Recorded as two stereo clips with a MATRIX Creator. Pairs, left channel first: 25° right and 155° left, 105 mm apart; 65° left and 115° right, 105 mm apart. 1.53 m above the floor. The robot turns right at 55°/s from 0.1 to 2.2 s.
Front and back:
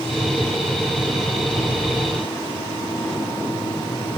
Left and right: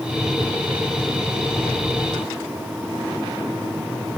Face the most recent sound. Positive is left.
No sound to turn to.